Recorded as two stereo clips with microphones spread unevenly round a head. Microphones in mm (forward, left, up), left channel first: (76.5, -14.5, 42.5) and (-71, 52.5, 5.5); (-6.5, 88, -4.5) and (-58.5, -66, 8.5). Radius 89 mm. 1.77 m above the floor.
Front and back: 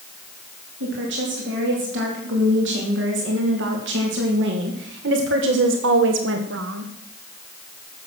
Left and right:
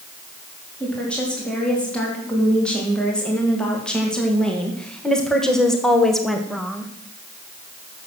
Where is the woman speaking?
155° left, 4.5 m; by 6.9 s 165° left, 1.2 m.